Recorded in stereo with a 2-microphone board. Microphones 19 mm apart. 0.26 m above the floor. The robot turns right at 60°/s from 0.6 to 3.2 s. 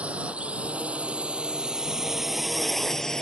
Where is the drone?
75° right (ahead or behind); by 3.2 s 15° left (ahead or behind).